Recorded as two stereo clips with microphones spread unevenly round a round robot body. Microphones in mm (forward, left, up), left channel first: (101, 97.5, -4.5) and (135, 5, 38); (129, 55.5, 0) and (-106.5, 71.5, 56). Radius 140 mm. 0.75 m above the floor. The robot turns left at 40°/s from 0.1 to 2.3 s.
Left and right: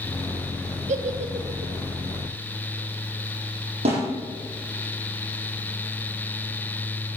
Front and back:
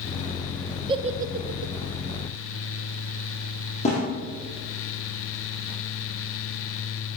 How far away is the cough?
I don't hear a cough.